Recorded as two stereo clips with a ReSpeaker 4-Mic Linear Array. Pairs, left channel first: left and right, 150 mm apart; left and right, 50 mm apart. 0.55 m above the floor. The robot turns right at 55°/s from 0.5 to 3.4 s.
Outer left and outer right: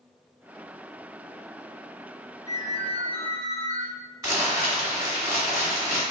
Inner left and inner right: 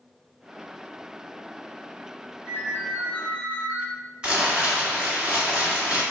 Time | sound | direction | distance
2.5 | a ringtone | 115° left | 2.0 m
4.2 | crumpling | 20° right (ahead or behind) | 1.8 m